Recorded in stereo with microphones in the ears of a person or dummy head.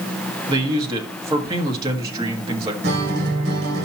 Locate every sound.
0.5 s a man speaking: 25° right (ahead or behind), 1.7 m
2.8 s a guitar: 70° right (ahead or behind), 2.5 m